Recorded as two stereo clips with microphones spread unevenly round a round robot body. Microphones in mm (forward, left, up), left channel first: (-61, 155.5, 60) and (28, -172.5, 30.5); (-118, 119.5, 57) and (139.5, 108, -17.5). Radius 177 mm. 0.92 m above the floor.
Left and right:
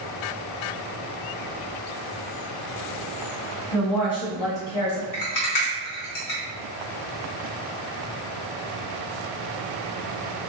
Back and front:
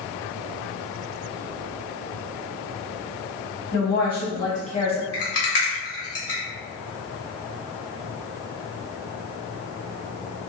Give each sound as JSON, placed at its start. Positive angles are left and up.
{"t": 3.7, "sound": "a woman speaking", "azimuth_deg": 130, "distance_m": 1.5}
{"t": 5.1, "sound": "a rattle", "azimuth_deg": 140, "distance_m": 1.5}